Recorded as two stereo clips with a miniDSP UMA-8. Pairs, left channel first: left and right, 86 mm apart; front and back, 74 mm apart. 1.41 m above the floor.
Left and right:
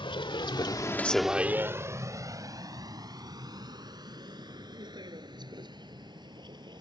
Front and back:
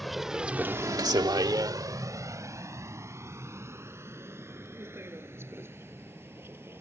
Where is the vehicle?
90° left; by 6.8 s 120° right.